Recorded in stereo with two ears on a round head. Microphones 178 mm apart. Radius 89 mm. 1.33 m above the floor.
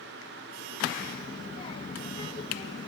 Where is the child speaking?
25° left (ahead or behind), 1.1 m.